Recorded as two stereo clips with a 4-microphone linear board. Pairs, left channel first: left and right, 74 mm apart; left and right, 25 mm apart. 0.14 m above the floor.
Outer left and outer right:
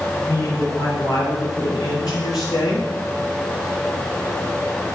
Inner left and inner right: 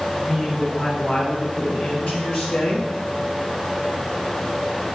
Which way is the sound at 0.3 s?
40° left (ahead or behind).